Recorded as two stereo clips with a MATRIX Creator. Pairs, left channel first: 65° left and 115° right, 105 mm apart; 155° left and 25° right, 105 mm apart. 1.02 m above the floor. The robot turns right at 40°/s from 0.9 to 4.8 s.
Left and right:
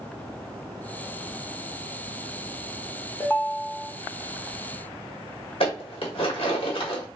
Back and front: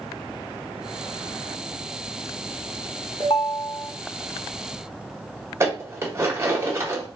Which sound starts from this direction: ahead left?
Dishes clattering, at 5.6 s.